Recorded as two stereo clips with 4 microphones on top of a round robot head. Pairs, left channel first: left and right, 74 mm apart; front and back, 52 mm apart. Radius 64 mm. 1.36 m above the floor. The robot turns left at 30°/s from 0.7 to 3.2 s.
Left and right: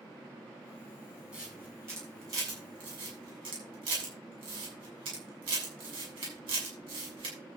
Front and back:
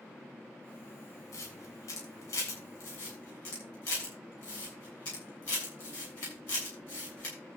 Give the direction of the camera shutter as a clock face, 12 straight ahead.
12 o'clock.